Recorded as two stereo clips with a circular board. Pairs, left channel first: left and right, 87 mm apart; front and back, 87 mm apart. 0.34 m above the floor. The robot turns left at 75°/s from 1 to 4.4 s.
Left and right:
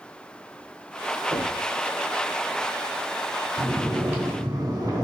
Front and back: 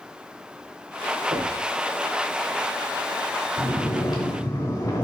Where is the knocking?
150° right, 4 m; by 1.7 s straight behind, 4 m.